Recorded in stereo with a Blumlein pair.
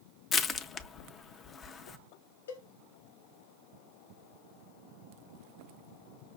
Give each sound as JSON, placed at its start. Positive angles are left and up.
{"t": 0.3, "sound": "crushing", "azimuth_deg": 25, "distance_m": 0.5}
{"t": 2.5, "sound": "a cowbell", "azimuth_deg": 65, "distance_m": 0.9}